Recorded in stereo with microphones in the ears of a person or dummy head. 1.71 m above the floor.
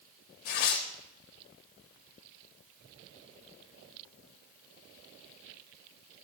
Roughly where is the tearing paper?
Left.